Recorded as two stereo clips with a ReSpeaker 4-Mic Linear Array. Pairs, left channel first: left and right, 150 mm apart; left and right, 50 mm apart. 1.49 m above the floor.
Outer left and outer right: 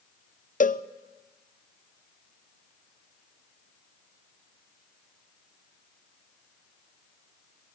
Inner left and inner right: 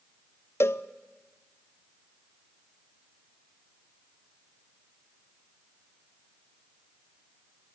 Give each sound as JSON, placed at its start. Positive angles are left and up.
{"t": 0.6, "sound": "a cowbell", "side_deg": 60, "distance_m": 0.6}